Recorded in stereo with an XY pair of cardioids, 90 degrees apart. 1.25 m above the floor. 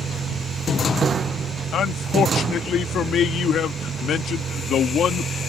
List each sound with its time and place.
0.0 s a vehicle: 60° right
1.7 s a man speaking: 70° left